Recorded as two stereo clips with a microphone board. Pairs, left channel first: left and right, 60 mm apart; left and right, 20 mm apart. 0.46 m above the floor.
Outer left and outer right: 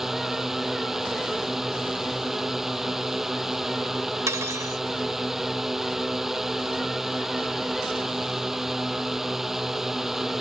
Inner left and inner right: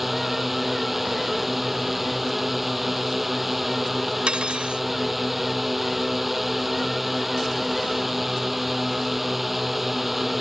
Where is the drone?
5° right (ahead or behind).